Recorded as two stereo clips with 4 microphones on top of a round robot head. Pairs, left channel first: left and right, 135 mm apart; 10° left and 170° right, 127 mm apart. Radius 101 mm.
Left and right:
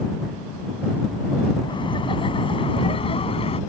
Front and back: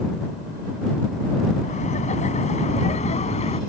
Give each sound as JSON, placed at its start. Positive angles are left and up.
{"t": 1.6, "sound": "laughter", "azimuth_deg": 35}